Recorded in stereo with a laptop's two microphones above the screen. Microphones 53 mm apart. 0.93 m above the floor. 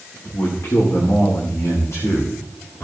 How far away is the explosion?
I don't hear an explosion.